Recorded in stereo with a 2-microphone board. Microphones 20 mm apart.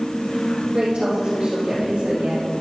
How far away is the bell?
No bell in this recording.